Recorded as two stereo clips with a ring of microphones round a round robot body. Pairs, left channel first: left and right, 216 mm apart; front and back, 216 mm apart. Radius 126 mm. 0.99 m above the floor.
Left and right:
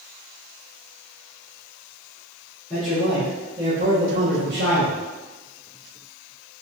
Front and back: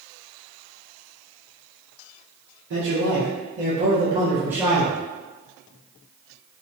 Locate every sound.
2.7 s a man speaking: 175° left, 1.1 m; by 5.0 s 90° right, 1.2 m